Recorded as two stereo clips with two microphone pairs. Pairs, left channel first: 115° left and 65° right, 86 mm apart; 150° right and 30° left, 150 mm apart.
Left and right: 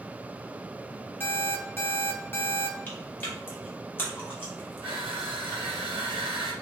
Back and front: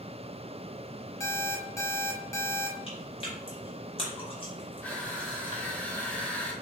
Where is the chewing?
170° left, 1.2 m.